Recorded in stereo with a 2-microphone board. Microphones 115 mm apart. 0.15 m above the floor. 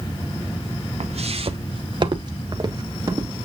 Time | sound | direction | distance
1.0 | footsteps | 70° right (ahead or behind) | 0.9 m